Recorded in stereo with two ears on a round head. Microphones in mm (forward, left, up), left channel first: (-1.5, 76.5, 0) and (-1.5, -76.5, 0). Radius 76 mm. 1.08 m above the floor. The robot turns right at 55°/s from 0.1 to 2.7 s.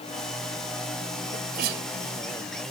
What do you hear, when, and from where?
1.3 s a sneeze: 45° right (ahead or behind); by 1.9 s 80° right